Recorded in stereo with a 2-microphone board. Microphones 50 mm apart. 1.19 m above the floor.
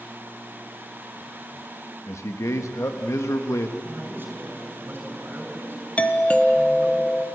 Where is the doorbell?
25° left (ahead or behind), 1.2 m.